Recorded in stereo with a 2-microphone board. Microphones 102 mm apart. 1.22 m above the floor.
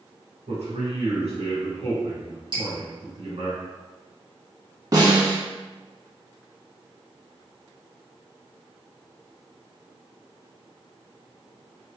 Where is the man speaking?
85° right, 1.7 m.